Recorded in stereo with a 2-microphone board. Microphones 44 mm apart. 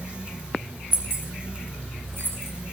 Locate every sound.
0.9 s keys jangling: 55° right (ahead or behind), 3 m; by 2.5 s 65° right (ahead or behind), 2.5 m